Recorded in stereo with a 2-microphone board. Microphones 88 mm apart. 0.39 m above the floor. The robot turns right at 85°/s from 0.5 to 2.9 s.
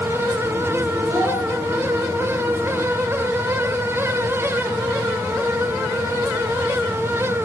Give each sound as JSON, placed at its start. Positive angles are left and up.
{"t": 1.1, "sound": "a child speaking", "azimuth_deg": -140, "distance_m": 1.9}